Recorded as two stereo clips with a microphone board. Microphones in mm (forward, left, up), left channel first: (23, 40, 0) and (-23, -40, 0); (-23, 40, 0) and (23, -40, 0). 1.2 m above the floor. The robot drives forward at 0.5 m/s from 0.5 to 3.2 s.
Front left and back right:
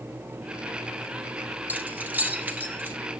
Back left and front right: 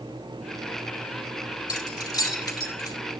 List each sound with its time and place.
1.7 s keys jangling: 170° left, 2.5 m